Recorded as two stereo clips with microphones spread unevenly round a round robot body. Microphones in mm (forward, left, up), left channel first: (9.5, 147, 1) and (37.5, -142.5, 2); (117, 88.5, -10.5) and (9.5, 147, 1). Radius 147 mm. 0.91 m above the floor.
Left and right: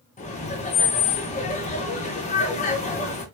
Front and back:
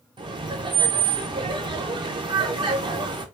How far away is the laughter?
About 0.7 m.